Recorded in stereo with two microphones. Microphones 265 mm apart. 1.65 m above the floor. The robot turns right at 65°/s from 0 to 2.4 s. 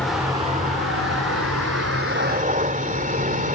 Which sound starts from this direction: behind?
A vehicle, at 0.0 s.